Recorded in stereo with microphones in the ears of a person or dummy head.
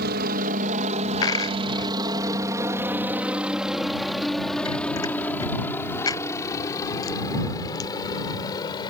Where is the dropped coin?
20° left (ahead or behind).